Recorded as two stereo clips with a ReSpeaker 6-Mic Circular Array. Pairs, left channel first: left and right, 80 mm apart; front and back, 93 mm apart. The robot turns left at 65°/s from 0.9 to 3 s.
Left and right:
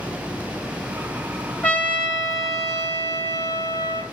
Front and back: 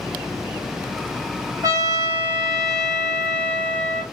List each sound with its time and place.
1.6 s a trumpet: 160° left, 1.5 m; by 4.0 s 70° left, 1.5 m